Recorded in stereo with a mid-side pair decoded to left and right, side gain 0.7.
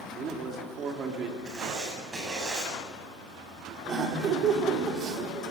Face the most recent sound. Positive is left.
turn(degrees=-40)